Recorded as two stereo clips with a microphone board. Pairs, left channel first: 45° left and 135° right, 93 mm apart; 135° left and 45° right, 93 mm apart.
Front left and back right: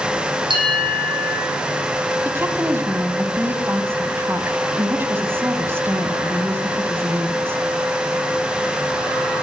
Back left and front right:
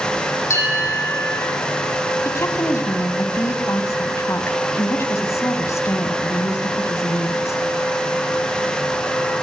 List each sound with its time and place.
0.5 s a bell: 165° right, 8.5 m
2.2 s a woman speaking: 175° left, 2.0 m